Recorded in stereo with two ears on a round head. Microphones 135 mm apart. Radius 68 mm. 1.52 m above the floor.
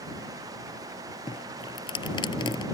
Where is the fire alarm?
I don't hear a fire alarm.